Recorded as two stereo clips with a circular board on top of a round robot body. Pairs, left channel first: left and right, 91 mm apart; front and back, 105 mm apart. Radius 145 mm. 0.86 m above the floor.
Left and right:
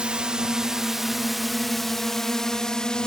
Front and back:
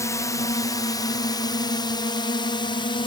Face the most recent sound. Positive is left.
turn(degrees=10)